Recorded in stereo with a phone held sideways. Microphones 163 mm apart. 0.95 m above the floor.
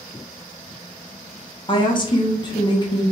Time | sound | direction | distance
1.7 | a woman speaking | 30° left (ahead or behind) | 0.6 m